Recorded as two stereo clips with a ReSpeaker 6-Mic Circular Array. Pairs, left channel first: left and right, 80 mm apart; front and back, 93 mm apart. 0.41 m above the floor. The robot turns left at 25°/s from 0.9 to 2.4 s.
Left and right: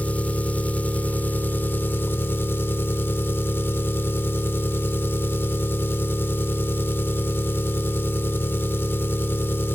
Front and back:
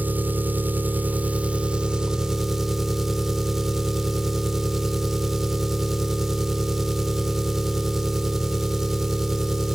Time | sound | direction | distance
0.0 | an engine running | 135° left | 0.7 m